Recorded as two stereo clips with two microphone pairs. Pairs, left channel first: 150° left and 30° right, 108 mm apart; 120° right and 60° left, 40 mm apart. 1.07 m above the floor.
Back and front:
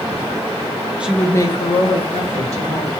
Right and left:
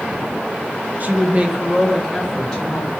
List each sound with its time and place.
1.0 s a woman speaking: 45° left, 0.6 m; by 2.9 s 165° left, 1.7 m